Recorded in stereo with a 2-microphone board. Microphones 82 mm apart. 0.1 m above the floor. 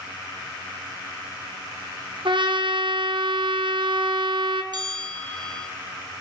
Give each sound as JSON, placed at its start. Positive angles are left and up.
{"t": 2.2, "sound": "a trumpet", "side_deg": -70, "distance_m": 2.5}
{"t": 4.7, "sound": "a bell", "side_deg": -55, "distance_m": 2.5}